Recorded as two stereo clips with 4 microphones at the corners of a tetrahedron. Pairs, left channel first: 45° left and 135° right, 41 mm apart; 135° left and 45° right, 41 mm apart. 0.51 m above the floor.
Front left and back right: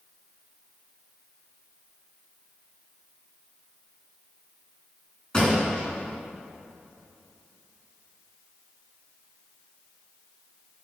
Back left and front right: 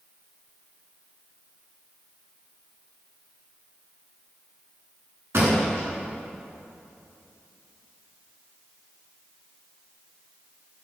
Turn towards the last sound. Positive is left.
turn(degrees=-25)